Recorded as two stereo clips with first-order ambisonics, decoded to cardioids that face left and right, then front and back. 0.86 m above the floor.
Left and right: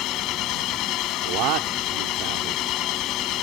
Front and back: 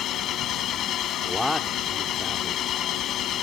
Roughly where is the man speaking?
Right.